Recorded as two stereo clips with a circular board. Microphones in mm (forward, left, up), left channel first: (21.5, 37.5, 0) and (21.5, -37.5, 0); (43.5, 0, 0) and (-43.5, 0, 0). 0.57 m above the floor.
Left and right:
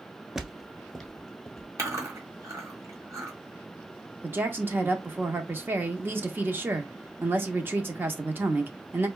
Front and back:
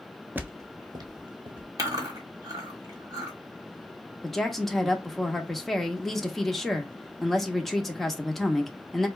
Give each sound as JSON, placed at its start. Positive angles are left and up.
{"t": 0.3, "sound": "footsteps", "azimuth_deg": -160, "distance_m": 0.5}
{"t": 1.8, "sound": "chewing", "azimuth_deg": -135, "distance_m": 1.4}
{"t": 4.2, "sound": "a woman speaking", "azimuth_deg": -85, "distance_m": 0.7}